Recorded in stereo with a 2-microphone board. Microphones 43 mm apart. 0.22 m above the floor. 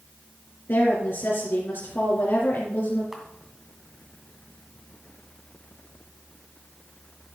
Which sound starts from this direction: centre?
A camera shutter, at 3.1 s.